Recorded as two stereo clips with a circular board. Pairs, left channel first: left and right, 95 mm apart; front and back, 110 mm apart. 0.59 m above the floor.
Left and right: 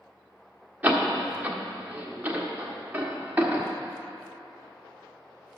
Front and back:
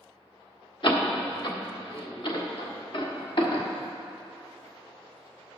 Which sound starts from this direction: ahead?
A door slam, at 0.8 s.